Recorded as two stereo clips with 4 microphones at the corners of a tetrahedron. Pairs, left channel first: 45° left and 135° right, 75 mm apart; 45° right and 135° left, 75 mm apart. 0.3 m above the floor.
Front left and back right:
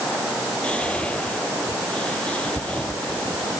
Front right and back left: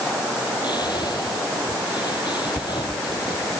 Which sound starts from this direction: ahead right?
Whispering, at 0.6 s.